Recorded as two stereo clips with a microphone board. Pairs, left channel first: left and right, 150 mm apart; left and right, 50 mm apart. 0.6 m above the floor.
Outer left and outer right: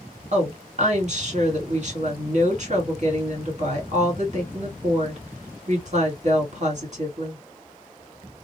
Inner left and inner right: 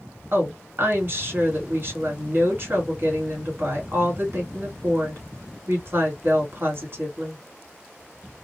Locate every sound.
0.3 s a woman speaking: 50° right (ahead or behind), 1.7 m